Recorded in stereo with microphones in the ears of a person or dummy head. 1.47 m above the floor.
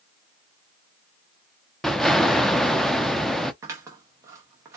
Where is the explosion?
5° left (ahead or behind), 0.6 m.